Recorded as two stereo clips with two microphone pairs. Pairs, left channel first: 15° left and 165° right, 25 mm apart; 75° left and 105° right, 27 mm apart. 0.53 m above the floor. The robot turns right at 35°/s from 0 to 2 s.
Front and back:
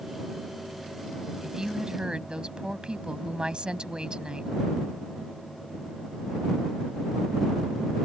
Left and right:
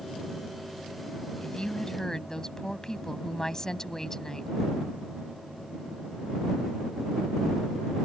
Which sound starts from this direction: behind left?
A woman speaking, at 1.4 s.